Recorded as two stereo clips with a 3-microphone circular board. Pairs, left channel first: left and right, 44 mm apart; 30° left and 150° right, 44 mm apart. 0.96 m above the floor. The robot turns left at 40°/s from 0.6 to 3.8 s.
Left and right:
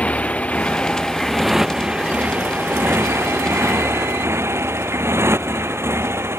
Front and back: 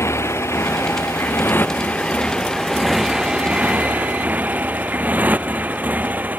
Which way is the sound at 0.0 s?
30° left.